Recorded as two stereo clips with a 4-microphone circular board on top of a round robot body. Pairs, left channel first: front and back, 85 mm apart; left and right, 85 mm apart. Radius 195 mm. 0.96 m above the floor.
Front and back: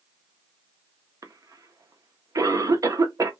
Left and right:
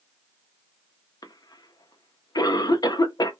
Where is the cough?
130° left, 0.9 m.